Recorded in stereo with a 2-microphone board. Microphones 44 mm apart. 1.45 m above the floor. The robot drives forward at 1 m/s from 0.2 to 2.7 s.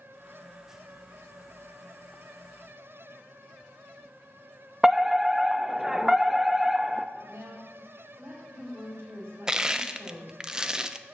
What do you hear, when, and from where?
4.8 s a fire alarm: 10° right (ahead or behind), 0.7 m
7.2 s a woman speaking: 65° right (ahead or behind), 6.5 m
9.5 s crushing: 20° right (ahead or behind), 0.7 m